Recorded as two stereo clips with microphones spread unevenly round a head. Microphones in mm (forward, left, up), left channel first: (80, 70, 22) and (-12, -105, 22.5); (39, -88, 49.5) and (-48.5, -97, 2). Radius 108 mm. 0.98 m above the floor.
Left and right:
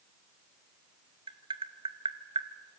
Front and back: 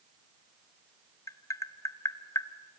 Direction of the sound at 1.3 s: 50° right.